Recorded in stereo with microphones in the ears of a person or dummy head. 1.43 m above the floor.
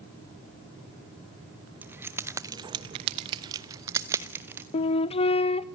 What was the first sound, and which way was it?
Keys jangling, 10° right (ahead or behind).